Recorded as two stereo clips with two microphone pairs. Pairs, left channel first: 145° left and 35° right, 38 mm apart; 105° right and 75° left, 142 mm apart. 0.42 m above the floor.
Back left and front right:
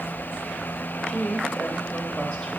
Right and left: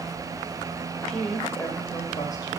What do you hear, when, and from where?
1.1 s a woman speaking: 175° left, 1.8 m; by 2.6 s 160° right, 2 m